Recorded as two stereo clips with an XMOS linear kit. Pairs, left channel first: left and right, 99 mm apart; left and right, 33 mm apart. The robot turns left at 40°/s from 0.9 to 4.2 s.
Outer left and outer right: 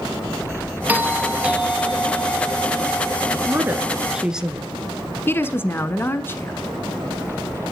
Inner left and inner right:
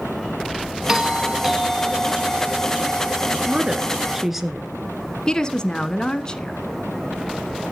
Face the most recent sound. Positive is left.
turn(degrees=25)  # may be behind; listen again after turning